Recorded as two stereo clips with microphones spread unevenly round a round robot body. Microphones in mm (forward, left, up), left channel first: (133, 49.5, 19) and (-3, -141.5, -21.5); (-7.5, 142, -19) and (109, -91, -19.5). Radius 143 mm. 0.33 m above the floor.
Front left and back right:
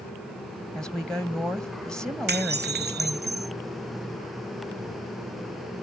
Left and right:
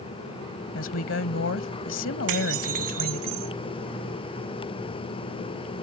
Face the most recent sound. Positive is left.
turn(degrees=-80)